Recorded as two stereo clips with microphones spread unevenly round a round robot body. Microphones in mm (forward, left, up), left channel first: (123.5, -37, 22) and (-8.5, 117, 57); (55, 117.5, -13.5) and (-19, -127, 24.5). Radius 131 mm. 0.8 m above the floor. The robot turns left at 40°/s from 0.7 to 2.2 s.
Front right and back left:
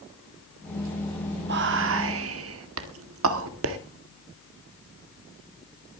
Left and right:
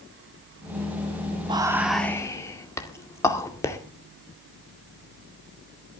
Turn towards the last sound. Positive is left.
turn(degrees=150)